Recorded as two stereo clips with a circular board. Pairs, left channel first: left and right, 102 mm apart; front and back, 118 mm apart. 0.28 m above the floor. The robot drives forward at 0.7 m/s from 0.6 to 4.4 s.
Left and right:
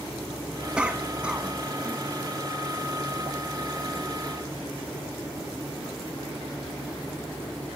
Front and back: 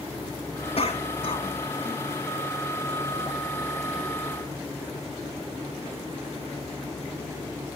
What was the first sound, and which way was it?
A cough, 10° right.